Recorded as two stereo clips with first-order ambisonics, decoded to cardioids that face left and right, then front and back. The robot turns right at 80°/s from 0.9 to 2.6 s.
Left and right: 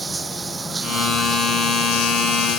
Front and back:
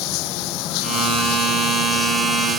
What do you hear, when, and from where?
0.0 s running water: 15° right; by 2.6 s 120° left